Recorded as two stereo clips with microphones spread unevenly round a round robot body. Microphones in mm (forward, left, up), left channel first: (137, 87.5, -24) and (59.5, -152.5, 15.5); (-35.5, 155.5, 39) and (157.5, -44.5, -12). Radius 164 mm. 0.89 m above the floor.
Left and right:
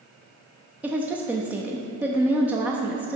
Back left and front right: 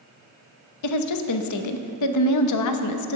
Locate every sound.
0.8 s a woman speaking: 160° left, 0.8 m